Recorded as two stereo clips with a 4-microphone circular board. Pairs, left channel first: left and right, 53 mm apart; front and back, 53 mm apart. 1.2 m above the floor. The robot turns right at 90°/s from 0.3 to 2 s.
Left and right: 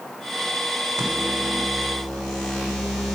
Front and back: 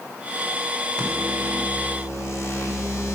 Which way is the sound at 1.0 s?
75° right.